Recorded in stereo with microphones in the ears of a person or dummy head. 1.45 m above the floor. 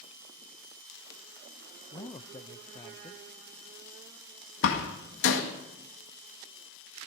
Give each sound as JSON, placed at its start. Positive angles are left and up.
{"t": 1.9, "sound": "a man speaking", "side_deg": 20, "distance_m": 0.5}
{"t": 4.6, "sound": "a door slam", "side_deg": 65, "distance_m": 1.8}